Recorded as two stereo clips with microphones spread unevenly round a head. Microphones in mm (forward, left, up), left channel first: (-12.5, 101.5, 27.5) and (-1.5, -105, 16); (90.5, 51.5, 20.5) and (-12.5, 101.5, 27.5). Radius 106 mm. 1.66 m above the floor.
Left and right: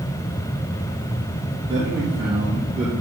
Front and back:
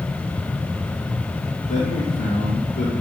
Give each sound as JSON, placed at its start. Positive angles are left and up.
{"t": 1.7, "sound": "a man speaking", "azimuth_deg": -20, "distance_m": 2.5}